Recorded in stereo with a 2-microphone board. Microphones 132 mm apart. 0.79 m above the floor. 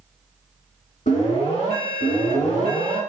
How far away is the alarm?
About 2.0 m.